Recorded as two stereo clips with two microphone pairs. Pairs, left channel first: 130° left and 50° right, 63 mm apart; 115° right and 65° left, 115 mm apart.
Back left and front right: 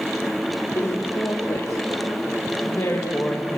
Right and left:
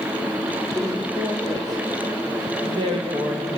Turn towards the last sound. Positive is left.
turn(degrees=85)